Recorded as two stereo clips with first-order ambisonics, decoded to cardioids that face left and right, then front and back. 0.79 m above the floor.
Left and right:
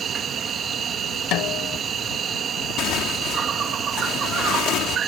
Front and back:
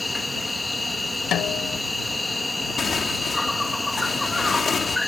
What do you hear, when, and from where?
0.0 s an insect: 75° right
1.3 s a snare drum: 50° left
2.8 s tearing paper: 65° left